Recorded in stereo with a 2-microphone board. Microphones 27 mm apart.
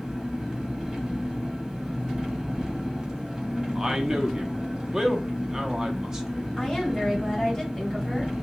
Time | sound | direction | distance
0.0 | an engine running | 15° right (ahead or behind) | 0.8 m
3.8 | a man speaking | 20° right (ahead or behind) | 0.6 m
6.6 | a woman speaking | 20° left (ahead or behind) | 1.5 m